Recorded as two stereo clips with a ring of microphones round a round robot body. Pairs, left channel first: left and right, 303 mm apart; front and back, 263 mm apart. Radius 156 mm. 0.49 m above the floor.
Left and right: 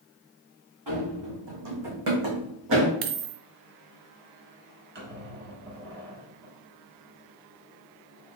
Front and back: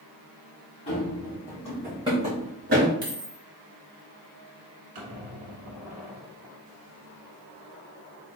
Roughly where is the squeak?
Behind right.